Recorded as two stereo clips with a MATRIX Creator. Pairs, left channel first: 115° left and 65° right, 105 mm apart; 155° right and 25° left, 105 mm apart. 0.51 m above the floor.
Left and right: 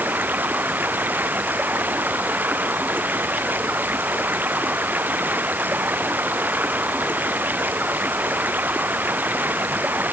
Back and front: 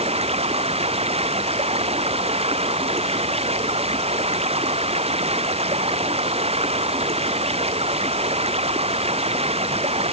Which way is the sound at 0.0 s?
5° left.